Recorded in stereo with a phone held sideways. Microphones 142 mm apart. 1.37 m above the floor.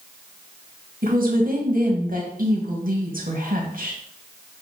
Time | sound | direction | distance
1.0 | a woman speaking | 70° right (ahead or behind) | 2.0 m